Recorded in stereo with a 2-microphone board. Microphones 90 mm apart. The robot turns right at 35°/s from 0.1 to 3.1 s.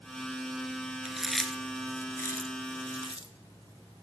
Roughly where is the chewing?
Centre.